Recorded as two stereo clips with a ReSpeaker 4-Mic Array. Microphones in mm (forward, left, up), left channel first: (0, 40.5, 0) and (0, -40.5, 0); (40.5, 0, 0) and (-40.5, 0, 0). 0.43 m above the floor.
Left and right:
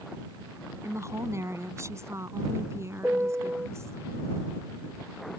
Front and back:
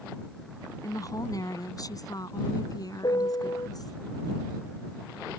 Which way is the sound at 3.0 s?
25° right.